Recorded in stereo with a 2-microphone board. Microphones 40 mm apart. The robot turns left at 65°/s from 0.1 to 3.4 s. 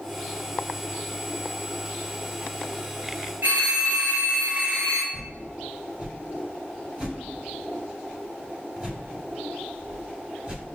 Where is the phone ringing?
45° right (ahead or behind), 1.6 m.